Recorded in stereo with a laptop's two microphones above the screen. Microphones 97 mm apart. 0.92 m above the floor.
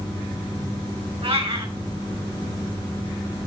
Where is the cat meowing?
85° right, 3 m.